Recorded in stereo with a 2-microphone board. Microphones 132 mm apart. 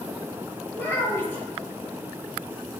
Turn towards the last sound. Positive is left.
turn(degrees=15)  # may be behind; listen again after turning